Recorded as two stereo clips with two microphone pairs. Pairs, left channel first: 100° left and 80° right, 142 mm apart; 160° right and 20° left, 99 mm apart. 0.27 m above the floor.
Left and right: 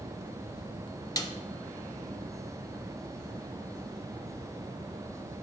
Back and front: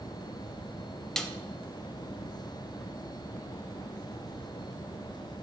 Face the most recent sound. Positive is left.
turn(degrees=120)